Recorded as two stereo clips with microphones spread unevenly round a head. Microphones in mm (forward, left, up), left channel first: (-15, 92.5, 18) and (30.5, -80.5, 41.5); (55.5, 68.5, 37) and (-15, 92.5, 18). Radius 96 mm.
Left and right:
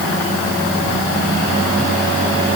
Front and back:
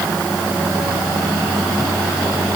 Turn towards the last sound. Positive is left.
No sound to turn to.